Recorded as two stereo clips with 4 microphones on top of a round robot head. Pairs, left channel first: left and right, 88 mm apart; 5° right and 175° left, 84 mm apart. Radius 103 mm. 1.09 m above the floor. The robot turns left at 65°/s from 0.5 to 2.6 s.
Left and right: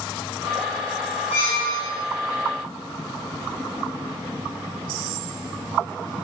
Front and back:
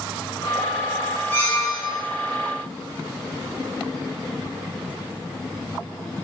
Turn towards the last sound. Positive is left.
turn(degrees=-20)